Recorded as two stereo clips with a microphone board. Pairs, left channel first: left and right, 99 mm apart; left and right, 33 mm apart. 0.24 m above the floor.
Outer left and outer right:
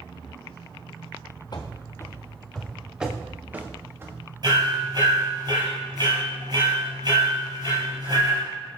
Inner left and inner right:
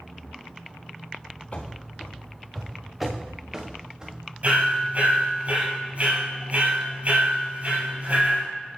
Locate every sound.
1.5 s running footsteps: 45° left (ahead or behind), 1.1 m; by 4.2 s 25° right (ahead or behind), 2.5 m
4.4 s hammering: 45° right (ahead or behind), 4 m